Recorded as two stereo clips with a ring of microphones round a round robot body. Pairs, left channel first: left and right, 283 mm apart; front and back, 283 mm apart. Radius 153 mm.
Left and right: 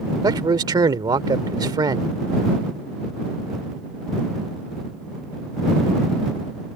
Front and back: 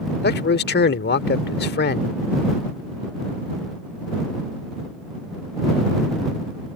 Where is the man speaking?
20° right.